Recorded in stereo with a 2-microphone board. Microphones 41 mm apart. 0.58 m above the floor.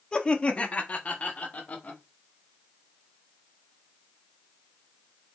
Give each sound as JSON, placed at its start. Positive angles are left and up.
{"t": 0.1, "sound": "laughter", "side_deg": 20, "distance_m": 0.6}